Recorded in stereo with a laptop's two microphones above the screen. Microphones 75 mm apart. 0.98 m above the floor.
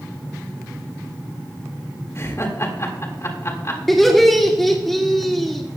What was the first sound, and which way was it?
Laughter, 40° left (ahead or behind).